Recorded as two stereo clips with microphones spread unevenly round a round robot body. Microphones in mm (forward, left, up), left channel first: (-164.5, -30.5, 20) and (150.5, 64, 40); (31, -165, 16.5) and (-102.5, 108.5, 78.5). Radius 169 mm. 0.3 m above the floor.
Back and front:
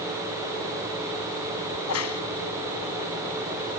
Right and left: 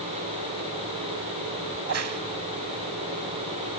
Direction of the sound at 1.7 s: 160° left.